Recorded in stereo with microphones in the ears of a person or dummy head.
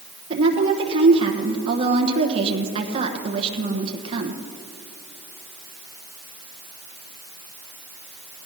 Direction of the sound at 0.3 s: 30° right (ahead or behind).